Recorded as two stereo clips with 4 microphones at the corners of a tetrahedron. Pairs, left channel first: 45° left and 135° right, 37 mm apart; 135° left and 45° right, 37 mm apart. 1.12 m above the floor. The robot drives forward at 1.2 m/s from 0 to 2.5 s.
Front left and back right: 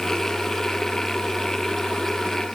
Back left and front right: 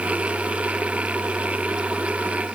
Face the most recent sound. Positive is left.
No sound to turn to.